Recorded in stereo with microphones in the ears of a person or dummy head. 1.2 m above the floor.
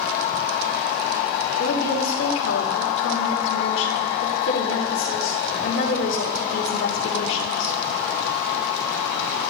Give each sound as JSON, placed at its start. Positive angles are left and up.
{"t": 1.6, "sound": "a woman speaking", "side_deg": 75, "distance_m": 3.0}